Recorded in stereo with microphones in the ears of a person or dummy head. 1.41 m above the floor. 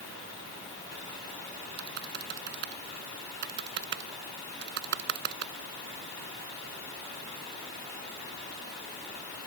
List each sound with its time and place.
1.8 s typing on a keyboard: 60° right (ahead or behind)